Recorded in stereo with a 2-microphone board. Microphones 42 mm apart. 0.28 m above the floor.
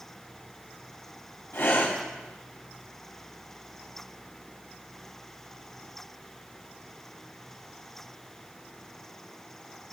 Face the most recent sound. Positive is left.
turn(degrees=70)  # may be behind; listen again after turning